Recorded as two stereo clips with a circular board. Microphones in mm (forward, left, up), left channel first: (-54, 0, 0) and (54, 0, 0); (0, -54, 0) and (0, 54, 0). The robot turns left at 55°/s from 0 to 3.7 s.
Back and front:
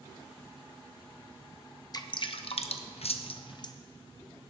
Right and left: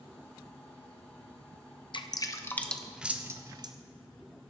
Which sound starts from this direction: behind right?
Dripping, at 1.9 s.